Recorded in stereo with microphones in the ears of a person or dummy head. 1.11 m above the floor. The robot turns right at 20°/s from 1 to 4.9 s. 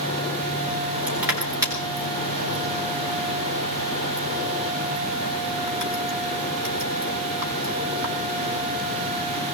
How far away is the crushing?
About 3.5 m.